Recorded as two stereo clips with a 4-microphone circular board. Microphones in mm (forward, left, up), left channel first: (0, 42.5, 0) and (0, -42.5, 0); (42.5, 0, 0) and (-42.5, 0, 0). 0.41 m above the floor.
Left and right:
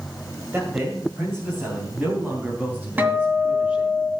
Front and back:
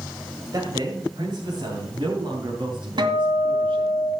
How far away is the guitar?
About 2.0 m.